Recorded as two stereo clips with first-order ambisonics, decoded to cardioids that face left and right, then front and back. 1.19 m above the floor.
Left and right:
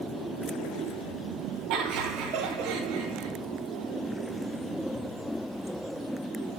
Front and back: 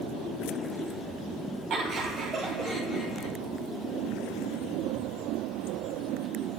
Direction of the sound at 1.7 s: 125° right.